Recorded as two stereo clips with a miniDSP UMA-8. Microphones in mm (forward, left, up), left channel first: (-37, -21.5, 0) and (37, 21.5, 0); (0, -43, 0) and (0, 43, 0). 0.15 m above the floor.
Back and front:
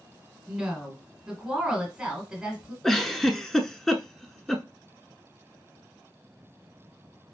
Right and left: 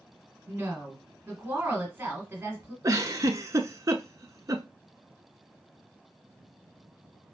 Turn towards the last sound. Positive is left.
turn(degrees=130)